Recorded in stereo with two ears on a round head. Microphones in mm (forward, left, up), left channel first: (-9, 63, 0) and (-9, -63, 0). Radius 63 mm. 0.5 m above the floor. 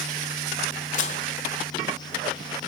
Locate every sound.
0.9 s dishes clattering: 55° left (ahead or behind), 1.4 m